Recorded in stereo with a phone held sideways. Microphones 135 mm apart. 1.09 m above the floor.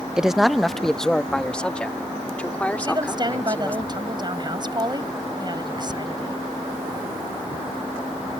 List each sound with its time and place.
0.2 s a man speaking: 5° right (ahead or behind); by 3.8 s 10° left (ahead or behind)
2.8 s a woman speaking: 35° right (ahead or behind)